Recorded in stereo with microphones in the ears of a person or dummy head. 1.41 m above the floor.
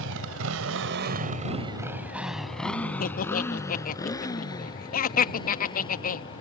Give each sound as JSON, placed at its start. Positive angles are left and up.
{"t": 0.0, "sound": "a motorcycle", "side_deg": -75}
{"t": 3.0, "sound": "laughter", "side_deg": 40}